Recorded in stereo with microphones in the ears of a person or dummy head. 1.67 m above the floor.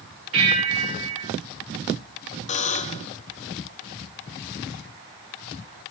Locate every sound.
0.3 s a bell: 75° right (ahead or behind), 6.5 m
2.5 s a buzzer: 30° left (ahead or behind), 0.8 m